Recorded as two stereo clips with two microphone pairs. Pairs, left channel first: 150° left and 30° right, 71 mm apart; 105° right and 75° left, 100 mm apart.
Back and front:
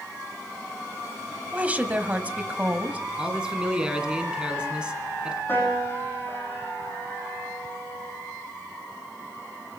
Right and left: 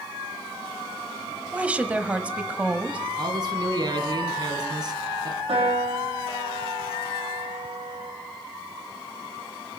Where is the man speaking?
45° left, 1.8 m.